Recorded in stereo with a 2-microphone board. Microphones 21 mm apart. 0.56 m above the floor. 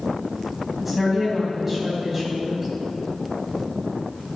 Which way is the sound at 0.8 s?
15° right (ahead or behind).